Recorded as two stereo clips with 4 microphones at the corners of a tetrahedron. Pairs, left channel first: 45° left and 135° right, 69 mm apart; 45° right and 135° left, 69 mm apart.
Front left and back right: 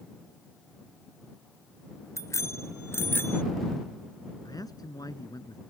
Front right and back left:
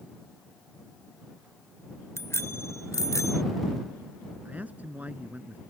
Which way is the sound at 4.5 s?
70° left.